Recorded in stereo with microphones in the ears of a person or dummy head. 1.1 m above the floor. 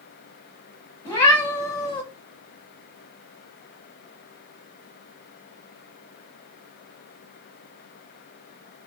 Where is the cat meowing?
15° left (ahead or behind), 0.7 m.